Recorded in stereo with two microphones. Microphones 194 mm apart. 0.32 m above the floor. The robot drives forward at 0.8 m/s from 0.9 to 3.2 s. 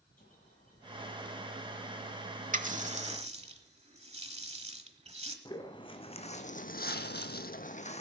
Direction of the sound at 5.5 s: 25° left (ahead or behind).